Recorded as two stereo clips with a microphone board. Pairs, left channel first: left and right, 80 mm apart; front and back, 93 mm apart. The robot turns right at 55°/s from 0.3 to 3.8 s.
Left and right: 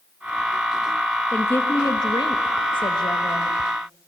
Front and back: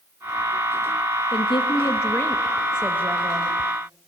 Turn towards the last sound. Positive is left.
turn(degrees=155)